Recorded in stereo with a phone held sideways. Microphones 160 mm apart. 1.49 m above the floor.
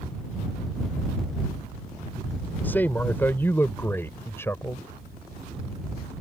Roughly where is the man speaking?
Centre.